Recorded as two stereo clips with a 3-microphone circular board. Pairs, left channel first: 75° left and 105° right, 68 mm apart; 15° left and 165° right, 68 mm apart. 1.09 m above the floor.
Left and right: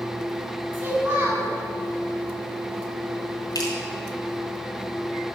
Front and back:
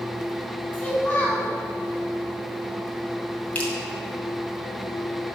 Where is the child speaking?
40° right, 3 m.